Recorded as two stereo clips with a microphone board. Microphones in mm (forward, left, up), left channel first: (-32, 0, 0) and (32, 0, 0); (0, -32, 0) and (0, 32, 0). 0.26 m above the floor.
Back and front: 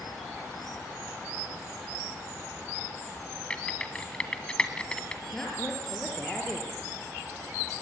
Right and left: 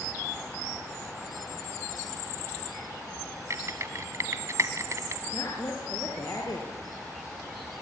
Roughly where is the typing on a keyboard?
Left.